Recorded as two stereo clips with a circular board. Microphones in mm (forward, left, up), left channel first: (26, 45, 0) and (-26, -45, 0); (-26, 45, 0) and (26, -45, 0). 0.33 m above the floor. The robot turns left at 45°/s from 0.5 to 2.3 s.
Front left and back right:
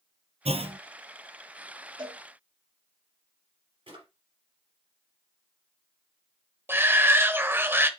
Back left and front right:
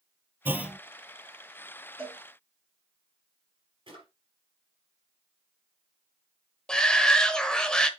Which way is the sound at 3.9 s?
95° right.